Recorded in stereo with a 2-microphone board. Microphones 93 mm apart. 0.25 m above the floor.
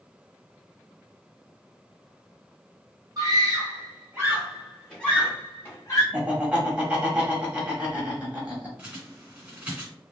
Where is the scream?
40° right (ahead or behind), 1.5 m; by 6.0 s 35° left (ahead or behind), 1.3 m.